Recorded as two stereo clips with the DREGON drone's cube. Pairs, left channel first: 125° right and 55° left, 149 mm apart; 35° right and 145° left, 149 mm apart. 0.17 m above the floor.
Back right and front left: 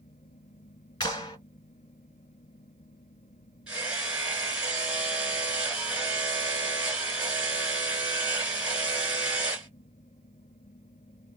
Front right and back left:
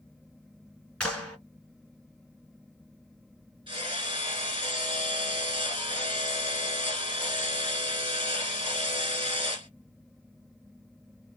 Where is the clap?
110° right, 1.3 m.